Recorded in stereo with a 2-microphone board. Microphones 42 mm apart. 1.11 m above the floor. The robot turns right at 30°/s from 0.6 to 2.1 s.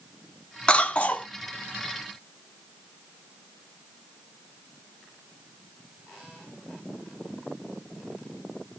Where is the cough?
25° left (ahead or behind), 0.5 m; by 1.3 s 35° left (ahead or behind), 0.5 m.